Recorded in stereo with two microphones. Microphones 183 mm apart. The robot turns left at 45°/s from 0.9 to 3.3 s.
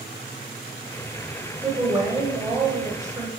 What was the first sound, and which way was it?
A woman speaking, 15° right (ahead or behind).